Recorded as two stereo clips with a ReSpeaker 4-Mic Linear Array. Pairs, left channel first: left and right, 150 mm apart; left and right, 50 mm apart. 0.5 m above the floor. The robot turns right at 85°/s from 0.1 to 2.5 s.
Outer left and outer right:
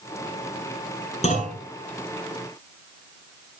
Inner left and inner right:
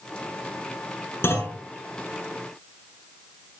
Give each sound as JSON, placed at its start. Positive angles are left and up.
{"t": 1.2, "sound": "a clunk", "side_deg": 45, "distance_m": 7.0}